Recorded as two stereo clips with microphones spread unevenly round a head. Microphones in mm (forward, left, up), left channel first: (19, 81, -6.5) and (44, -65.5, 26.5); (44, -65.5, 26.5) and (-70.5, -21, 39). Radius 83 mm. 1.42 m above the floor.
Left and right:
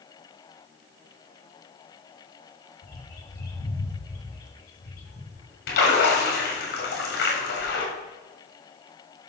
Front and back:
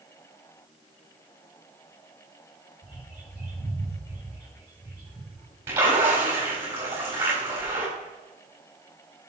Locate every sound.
2.8 s a bird: 75° left, 4 m
5.7 s a splash: 85° left, 3.5 m